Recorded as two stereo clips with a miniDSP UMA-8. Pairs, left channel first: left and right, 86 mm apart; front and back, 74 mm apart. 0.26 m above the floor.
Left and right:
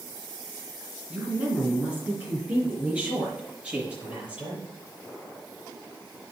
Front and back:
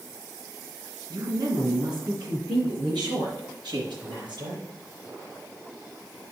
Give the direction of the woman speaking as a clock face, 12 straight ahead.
5 o'clock.